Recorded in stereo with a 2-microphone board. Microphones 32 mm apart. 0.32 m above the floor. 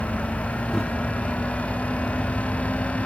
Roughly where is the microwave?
Centre.